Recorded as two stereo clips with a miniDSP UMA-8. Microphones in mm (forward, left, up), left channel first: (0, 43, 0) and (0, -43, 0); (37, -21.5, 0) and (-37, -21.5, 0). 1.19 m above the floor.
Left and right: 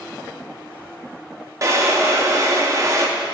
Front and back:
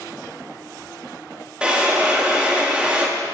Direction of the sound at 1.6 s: 110° right.